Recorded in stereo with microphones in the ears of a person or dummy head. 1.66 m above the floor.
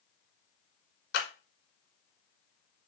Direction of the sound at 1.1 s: 65° left (ahead or behind).